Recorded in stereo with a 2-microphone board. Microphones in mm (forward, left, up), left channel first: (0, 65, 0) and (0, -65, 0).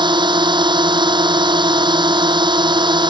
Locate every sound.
0.0 s a drone: 35° right (ahead or behind)